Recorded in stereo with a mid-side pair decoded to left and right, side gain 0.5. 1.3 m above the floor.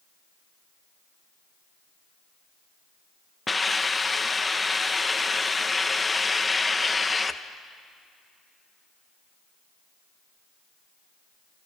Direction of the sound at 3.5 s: 20° left.